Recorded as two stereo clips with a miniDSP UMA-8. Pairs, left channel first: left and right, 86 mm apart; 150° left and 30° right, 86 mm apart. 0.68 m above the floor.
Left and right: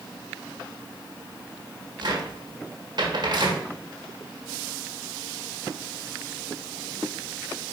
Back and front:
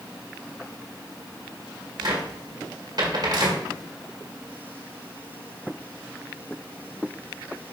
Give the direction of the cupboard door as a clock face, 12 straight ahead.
2 o'clock.